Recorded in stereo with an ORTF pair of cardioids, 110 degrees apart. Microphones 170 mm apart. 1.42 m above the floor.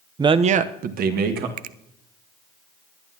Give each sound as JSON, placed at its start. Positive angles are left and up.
{"t": 0.2, "sound": "a man speaking", "azimuth_deg": -20, "distance_m": 0.7}
{"t": 1.6, "sound": "a finger snap", "azimuth_deg": -55, "distance_m": 0.5}